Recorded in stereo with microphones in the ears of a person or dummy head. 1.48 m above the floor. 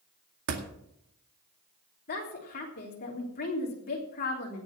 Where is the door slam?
65° right (ahead or behind), 2.0 m.